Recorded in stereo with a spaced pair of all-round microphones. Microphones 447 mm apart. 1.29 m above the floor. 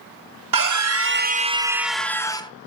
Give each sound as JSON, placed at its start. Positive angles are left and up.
{"t": 0.5, "sound": "a scream", "side_deg": -50, "distance_m": 0.6}